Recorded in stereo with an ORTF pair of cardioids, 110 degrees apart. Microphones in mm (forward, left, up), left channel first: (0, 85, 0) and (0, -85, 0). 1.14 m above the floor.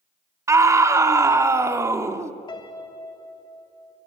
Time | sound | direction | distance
0.5 | a scream | 15° right | 2 m
2.5 | a piano | 25° left | 3 m